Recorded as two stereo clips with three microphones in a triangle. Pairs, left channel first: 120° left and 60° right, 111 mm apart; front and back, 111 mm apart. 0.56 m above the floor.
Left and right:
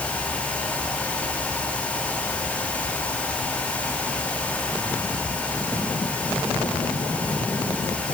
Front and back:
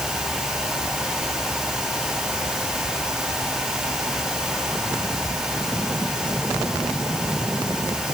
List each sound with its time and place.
Only background noise.